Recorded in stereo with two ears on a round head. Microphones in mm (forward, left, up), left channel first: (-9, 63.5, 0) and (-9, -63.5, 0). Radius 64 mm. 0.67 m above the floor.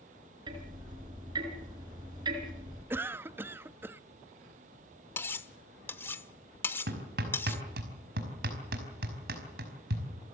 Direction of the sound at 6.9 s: 80° right.